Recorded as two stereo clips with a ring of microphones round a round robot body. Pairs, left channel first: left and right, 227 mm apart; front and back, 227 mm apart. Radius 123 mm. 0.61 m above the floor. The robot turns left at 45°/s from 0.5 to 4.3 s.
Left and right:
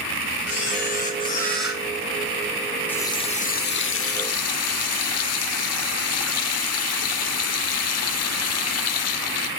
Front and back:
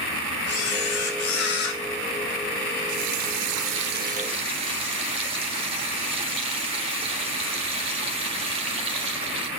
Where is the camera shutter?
50° left, 2.5 m; by 1.8 s 10° right, 2.5 m.